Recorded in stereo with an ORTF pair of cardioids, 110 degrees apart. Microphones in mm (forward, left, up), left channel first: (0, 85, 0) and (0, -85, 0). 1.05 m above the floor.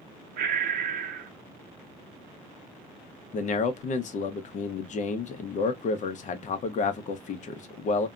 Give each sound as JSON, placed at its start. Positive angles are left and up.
{"t": 0.4, "sound": "breathing", "azimuth_deg": -55, "distance_m": 0.6}
{"t": 3.3, "sound": "a man speaking", "azimuth_deg": 50, "distance_m": 0.7}